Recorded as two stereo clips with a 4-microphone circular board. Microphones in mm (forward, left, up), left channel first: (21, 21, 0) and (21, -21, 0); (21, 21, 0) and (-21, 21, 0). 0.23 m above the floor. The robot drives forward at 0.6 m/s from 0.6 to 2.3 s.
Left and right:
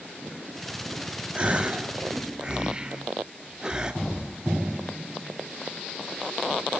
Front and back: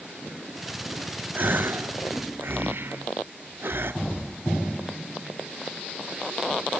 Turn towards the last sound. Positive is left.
turn(degrees=20)